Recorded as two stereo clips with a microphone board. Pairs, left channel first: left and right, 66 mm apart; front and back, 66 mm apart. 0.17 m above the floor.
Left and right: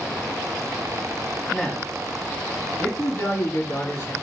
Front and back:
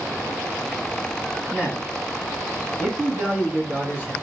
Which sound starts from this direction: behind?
A man speaking, at 1.5 s.